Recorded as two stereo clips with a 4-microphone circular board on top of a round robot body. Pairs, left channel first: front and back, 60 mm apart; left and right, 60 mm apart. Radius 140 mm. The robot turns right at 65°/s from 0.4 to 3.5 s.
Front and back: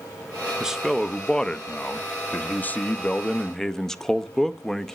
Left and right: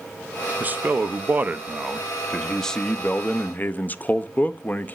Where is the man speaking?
115° right, 0.6 m; by 5.0 s 75° left, 0.6 m.